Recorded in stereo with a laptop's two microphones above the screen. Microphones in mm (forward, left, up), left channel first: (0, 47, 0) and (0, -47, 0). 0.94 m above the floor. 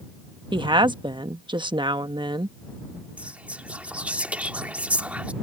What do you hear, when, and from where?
0.5 s a woman speaking: 55° right (ahead or behind)
3.2 s whispering: 15° right (ahead or behind)